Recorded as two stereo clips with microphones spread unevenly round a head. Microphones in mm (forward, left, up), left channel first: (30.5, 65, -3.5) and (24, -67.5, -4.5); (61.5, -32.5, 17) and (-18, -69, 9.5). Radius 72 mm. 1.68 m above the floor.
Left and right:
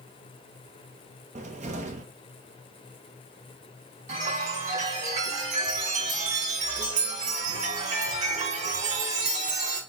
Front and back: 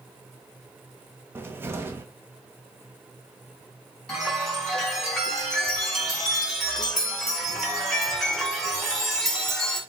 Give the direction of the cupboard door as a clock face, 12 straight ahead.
3 o'clock.